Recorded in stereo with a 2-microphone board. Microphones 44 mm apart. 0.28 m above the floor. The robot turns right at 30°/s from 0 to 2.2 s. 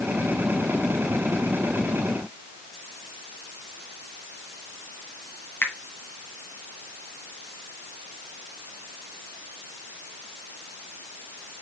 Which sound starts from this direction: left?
A finger snap, at 5.6 s.